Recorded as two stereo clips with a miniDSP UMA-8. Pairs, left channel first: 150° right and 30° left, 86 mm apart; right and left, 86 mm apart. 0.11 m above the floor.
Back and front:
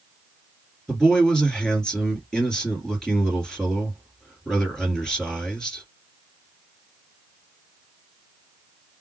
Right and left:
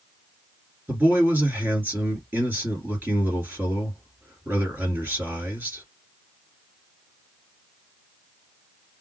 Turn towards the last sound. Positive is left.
turn(degrees=135)